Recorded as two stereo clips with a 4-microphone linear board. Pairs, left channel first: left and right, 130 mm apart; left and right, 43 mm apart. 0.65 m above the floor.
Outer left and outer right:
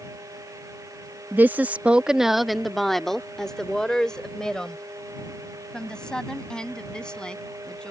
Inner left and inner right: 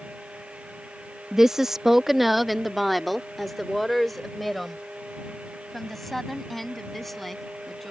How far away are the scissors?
I don't hear scissors.